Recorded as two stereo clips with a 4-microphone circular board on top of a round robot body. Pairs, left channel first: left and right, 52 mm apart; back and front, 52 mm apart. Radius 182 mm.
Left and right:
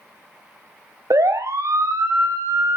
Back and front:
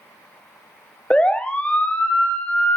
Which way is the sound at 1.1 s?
105° right.